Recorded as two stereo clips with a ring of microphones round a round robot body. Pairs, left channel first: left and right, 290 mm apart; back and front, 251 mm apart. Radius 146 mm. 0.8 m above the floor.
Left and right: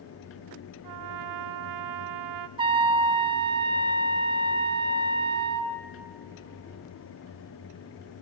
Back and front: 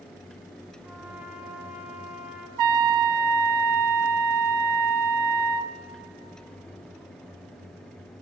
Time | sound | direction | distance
0.8 | a trumpet | 85° right | 0.5 m
2.6 | a trumpet | 15° right | 0.5 m